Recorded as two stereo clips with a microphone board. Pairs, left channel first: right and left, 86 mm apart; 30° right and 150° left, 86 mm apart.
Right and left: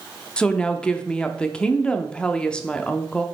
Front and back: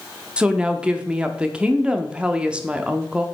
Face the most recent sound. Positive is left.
turn(degrees=-155)